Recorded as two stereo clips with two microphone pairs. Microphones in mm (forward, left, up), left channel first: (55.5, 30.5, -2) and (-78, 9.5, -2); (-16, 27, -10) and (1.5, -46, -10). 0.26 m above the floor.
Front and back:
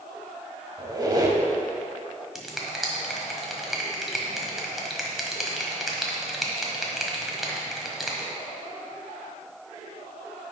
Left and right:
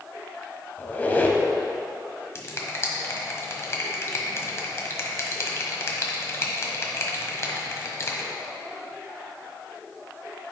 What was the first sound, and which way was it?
A squeak, 155° left.